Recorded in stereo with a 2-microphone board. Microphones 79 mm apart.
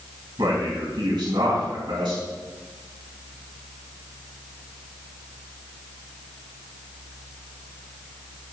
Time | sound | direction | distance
0.4 | a man speaking | 65° right (ahead or behind) | 3.5 m